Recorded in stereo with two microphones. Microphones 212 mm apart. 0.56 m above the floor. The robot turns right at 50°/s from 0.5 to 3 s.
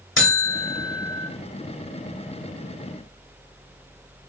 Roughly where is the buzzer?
Left.